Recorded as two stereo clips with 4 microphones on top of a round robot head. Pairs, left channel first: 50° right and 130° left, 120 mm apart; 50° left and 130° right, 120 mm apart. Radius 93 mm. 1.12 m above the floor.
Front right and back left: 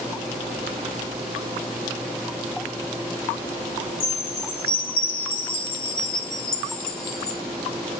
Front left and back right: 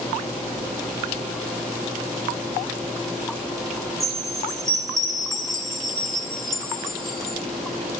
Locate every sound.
4.0 s a chime: 40° right, 3.5 m